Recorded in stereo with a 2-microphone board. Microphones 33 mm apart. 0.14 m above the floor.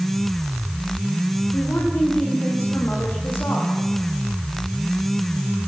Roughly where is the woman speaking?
Left.